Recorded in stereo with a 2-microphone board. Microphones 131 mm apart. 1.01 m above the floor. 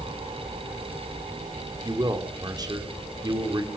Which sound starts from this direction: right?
A man speaking, at 1.8 s.